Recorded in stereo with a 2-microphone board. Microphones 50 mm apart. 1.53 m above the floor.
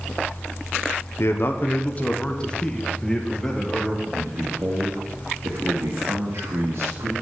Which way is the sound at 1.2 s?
65° left (ahead or behind).